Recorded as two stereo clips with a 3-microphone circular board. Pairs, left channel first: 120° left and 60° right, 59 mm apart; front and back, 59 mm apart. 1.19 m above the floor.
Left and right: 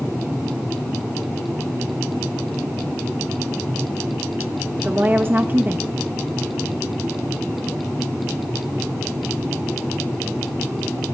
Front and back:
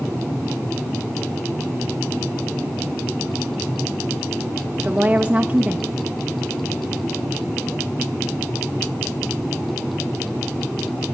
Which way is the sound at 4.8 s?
115° right.